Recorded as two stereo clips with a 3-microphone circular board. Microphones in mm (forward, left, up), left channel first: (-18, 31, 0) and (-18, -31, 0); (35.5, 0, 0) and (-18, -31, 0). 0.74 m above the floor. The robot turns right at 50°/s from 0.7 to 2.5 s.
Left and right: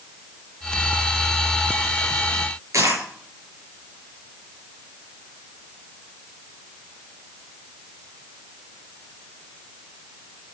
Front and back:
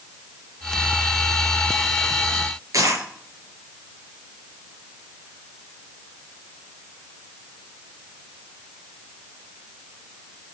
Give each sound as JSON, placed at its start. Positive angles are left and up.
{"t": 2.7, "sound": "a dropped coin", "azimuth_deg": -125, "distance_m": 4.5}